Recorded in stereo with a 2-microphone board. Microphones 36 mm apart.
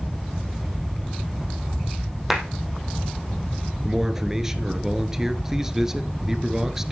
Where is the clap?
10° right (ahead or behind), 3.5 m.